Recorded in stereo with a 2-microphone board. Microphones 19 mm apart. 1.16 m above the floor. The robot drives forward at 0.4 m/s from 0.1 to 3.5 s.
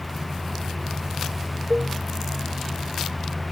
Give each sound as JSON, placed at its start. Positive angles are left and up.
{"t": 1.7, "sound": "a cowbell", "side_deg": -55}